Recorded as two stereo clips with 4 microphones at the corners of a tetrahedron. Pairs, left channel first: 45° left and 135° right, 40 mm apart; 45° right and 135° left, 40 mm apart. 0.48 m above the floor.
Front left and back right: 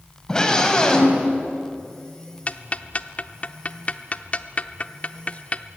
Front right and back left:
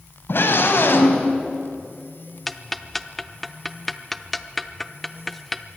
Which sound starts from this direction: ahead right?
A scream, at 0.3 s.